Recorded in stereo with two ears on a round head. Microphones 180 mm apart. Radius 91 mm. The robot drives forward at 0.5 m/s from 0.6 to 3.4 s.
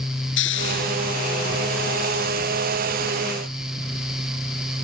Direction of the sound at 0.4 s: 60° left (ahead or behind).